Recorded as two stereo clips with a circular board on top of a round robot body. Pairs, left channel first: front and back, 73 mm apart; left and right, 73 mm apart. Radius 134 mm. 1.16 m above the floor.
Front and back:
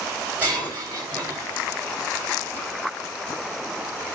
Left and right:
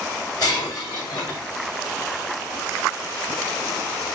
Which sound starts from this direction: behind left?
Breaking glass, at 0.4 s.